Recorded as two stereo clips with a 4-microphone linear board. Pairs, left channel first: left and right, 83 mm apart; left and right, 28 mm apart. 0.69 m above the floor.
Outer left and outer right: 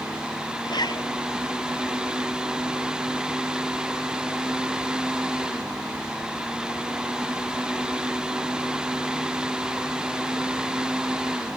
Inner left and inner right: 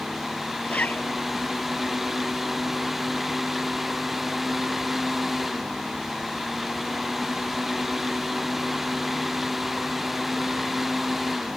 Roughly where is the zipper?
Left.